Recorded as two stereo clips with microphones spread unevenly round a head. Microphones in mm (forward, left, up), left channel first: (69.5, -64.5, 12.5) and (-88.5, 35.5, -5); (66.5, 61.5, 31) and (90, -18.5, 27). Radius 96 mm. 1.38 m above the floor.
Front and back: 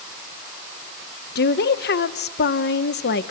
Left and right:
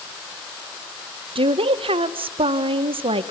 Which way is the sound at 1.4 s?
70° right.